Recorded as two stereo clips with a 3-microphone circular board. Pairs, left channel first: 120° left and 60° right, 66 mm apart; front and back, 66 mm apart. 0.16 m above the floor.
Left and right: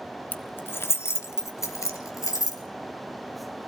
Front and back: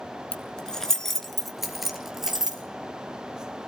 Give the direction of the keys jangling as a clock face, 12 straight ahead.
10 o'clock.